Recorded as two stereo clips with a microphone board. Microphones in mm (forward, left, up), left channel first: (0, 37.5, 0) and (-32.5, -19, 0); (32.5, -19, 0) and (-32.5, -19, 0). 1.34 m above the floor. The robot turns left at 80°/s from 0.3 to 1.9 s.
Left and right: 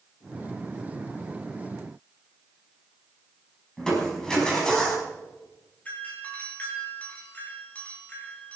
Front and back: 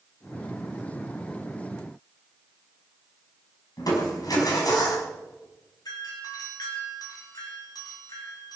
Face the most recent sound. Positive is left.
turn(degrees=-5)